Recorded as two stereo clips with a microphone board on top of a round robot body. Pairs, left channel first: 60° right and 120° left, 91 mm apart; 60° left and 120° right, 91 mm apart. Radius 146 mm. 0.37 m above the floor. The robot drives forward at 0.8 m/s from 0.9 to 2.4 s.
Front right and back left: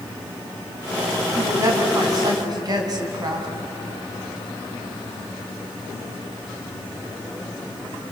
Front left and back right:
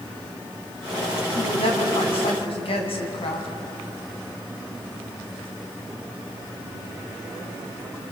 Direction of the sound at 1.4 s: 65° left.